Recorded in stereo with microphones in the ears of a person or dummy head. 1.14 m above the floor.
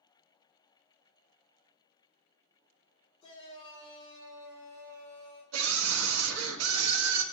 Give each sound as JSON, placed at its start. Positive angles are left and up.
{"t": 3.2, "sound": "a shout", "side_deg": 25, "distance_m": 3.5}
{"t": 5.5, "sound": "a scream", "side_deg": -75, "distance_m": 1.4}